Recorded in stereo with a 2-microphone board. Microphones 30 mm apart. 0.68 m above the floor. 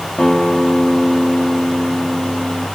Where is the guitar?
40° left (ahead or behind), 1.5 m.